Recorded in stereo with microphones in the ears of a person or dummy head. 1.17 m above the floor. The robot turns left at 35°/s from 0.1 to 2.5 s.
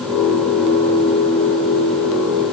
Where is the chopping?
I don't hear chopping.